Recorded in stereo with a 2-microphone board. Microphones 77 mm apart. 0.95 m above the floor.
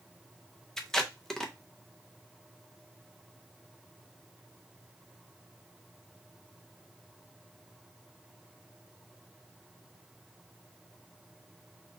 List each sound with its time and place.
0.8 s tape being pulled: 5° left (ahead or behind), 0.6 m